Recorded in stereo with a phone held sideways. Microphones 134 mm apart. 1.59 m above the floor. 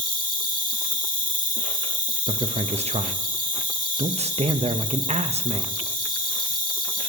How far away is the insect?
About 1.7 m.